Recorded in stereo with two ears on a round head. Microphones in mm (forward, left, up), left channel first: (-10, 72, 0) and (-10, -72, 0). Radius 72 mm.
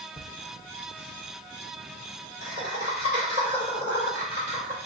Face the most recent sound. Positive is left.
turn(degrees=40)  # may be behind; listen again after turning